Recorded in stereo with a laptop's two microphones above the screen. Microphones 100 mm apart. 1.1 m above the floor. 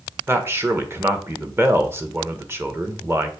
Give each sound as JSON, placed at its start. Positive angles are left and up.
{"t": 0.3, "sound": "a man speaking", "side_deg": -20, "distance_m": 1.2}